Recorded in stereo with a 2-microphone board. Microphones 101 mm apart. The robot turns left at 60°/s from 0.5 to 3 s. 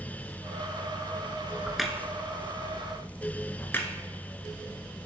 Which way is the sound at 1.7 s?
5° right (ahead or behind).